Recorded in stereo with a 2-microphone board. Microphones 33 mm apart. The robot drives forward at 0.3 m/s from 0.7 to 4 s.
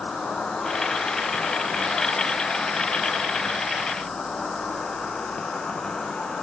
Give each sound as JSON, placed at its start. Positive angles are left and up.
{"t": 0.0, "sound": "an insect", "side_deg": 55, "distance_m": 2.0}